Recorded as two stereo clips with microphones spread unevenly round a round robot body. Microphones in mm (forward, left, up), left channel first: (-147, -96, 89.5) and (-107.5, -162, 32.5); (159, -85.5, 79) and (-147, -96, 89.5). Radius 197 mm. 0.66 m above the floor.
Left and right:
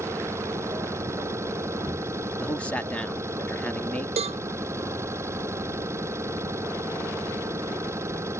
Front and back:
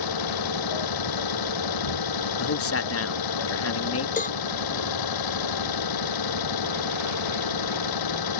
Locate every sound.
0.0 s an engine running: 10° left
2.4 s a man speaking: 5° left
4.2 s a cowbell: 65° right